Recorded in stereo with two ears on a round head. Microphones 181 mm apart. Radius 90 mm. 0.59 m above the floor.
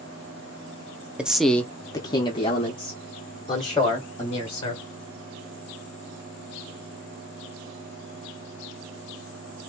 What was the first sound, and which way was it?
A man speaking, 5° right (ahead or behind).